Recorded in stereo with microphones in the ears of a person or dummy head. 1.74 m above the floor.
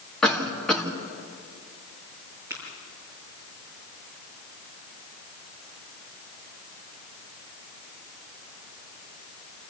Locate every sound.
0.2 s a cough: 10° left (ahead or behind), 2 m
2.5 s tapping: 10° right (ahead or behind), 7 m